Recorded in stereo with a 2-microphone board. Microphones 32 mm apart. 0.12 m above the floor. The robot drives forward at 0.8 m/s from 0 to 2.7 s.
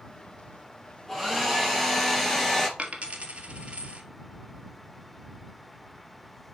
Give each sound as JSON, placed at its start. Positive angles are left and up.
{"t": 1.1, "sound": "a hair dryer", "side_deg": 5, "distance_m": 4.0}
{"t": 2.8, "sound": "a dropped coin", "side_deg": -40, "distance_m": 1.4}